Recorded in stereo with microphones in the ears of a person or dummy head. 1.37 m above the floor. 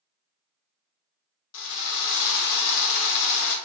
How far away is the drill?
About 0.6 m.